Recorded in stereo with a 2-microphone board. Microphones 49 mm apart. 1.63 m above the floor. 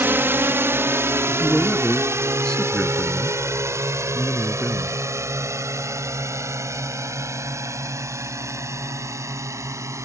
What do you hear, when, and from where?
0.0 s a drone: 45° right (ahead or behind); by 10.1 s 75° right (ahead or behind)
1.3 s a man speaking: 15° left (ahead or behind)